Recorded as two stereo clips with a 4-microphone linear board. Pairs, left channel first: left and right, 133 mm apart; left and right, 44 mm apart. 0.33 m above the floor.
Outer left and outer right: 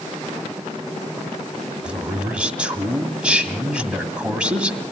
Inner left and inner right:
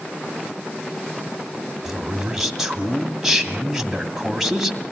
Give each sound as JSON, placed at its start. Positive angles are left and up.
{"t": 1.9, "sound": "a man speaking", "side_deg": -10, "distance_m": 2.0}